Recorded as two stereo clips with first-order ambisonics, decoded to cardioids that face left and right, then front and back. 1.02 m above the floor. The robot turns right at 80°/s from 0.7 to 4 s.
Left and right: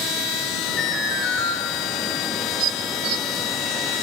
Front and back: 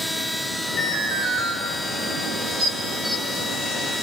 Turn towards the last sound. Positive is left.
turn(degrees=-20)